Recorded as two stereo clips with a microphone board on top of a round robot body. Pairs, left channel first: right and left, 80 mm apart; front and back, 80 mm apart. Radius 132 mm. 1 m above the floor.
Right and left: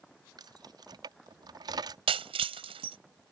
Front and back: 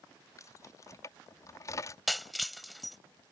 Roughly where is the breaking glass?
Left.